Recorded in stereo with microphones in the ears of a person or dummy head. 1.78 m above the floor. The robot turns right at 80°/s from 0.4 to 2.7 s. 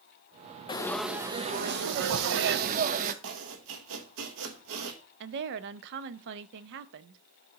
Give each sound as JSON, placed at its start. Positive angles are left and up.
{"t": 0.7, "sound": "frying", "azimuth_deg": 155, "distance_m": 0.6}
{"t": 3.2, "sound": "chopping", "side_deg": -75, "distance_m": 0.9}
{"t": 5.2, "sound": "a woman speaking", "side_deg": -65, "distance_m": 0.5}